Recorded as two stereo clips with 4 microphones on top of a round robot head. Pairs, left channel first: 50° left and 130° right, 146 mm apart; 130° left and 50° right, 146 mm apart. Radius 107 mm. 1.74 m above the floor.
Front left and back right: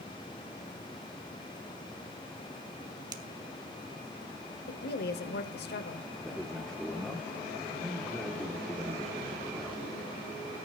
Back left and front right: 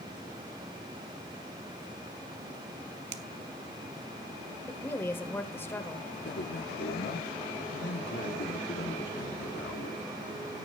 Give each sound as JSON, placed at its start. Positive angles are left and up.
{"t": 3.1, "sound": "a finger snap", "azimuth_deg": -65, "distance_m": 1.1}
{"t": 4.7, "sound": "a woman speaking", "azimuth_deg": 55, "distance_m": 1.2}
{"t": 6.2, "sound": "a man speaking", "azimuth_deg": 140, "distance_m": 1.3}